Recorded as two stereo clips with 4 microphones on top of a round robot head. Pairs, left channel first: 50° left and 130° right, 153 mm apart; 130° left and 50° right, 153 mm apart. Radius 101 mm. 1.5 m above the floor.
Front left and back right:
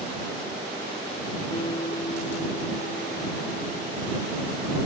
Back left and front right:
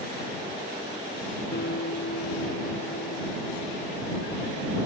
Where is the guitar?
110° left.